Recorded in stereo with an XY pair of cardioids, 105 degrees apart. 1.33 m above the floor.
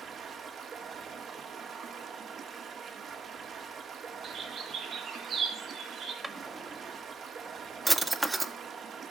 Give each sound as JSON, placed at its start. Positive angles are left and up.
{"t": 0.0, "sound": "running water", "azimuth_deg": -55, "distance_m": 3.0}
{"t": 4.2, "sound": "a bird", "azimuth_deg": -60, "distance_m": 6.0}
{"t": 6.2, "sound": "a drawer", "azimuth_deg": -20, "distance_m": 1.8}